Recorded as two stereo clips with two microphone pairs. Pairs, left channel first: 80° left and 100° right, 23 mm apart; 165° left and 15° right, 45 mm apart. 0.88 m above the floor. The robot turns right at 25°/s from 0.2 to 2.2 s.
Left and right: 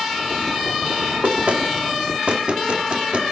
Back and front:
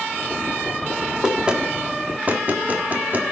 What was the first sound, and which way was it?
Knocking, 90° right.